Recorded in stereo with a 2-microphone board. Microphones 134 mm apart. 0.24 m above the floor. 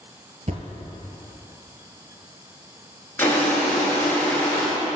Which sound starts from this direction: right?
A thud, at 0.5 s.